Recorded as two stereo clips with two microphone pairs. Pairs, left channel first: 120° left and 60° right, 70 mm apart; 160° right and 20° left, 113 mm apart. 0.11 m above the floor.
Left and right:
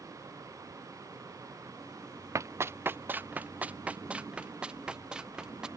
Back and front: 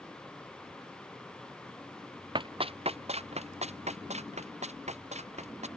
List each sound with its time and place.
2.4 s running footsteps: 20° right; by 5.7 s 20° left